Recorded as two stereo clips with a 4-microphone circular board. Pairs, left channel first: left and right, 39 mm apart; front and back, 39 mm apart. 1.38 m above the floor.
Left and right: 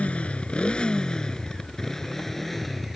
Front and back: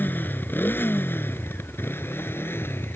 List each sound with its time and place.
0.0 s a motorcycle: 30° left; by 3.0 s straight ahead